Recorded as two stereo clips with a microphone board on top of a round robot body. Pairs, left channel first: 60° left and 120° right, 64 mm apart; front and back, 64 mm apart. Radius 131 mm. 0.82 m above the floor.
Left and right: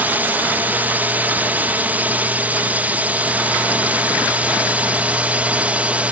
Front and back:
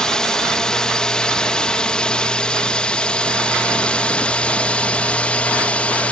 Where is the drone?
75° right; by 6.1 s 60° right.